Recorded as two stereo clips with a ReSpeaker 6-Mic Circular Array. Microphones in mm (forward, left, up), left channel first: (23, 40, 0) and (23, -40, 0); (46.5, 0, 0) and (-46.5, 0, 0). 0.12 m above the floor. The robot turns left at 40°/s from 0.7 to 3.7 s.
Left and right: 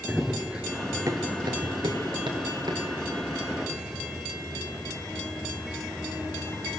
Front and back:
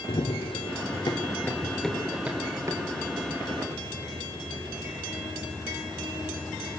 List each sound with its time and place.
0.1 s running footsteps: straight ahead, 1.4 m; by 6.7 s 170° right, 9 m